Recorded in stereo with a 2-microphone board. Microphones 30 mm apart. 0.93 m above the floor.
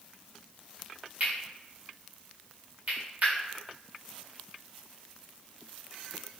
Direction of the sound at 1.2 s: 55° right (ahead or behind).